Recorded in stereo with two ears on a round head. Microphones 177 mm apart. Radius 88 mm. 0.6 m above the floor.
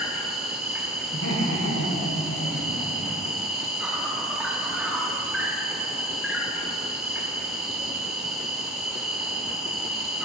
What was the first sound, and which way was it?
An insect, centre (ahead or behind).